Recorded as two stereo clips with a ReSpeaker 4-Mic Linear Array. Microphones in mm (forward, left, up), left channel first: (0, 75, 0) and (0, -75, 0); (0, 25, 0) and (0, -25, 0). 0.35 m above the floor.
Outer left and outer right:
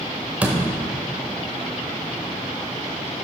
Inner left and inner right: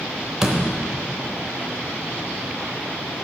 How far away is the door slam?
About 0.8 m.